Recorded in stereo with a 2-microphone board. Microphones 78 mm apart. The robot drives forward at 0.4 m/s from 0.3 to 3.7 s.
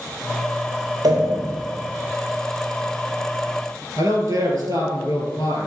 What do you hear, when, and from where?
1.0 s a pop: 65° right (ahead or behind), 1.2 m
4.0 s a man speaking: 50° right (ahead or behind), 1.9 m